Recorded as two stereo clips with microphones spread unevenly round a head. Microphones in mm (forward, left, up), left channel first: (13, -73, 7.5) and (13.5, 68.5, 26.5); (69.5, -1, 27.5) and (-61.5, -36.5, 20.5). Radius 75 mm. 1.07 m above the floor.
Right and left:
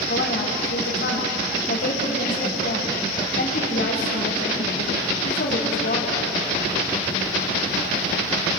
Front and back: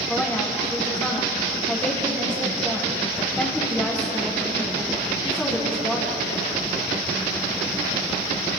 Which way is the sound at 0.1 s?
70° right.